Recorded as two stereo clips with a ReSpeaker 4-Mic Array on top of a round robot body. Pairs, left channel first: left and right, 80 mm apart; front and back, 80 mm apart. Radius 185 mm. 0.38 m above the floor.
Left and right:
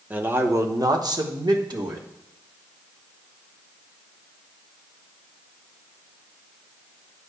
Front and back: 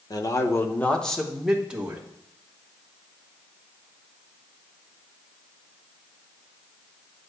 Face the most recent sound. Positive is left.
turn(degrees=-110)